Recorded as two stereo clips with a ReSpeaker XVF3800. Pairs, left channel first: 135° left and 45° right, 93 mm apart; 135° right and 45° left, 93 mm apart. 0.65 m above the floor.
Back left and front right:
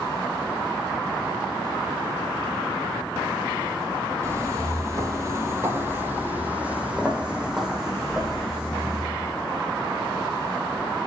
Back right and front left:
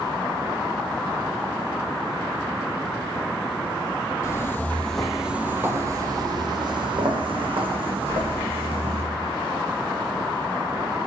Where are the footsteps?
90° right, 0.9 m; by 9.0 s 40° left, 2.5 m.